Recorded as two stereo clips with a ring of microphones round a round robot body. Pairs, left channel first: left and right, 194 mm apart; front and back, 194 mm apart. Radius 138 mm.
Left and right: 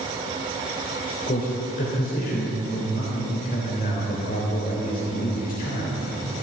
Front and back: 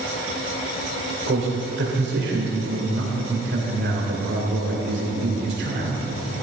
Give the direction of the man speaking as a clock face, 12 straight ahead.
7 o'clock.